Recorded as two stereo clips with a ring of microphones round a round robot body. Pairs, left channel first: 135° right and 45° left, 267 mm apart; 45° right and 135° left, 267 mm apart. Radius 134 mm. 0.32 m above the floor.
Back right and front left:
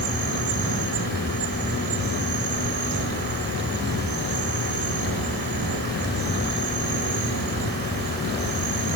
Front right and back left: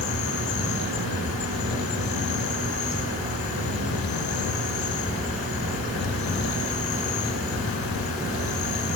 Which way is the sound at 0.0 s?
5° right.